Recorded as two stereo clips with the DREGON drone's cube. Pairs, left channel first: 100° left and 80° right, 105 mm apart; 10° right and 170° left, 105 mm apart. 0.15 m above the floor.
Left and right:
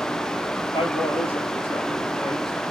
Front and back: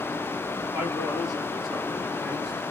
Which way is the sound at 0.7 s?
85° left.